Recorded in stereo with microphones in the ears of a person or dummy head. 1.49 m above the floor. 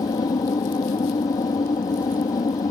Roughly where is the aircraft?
Left.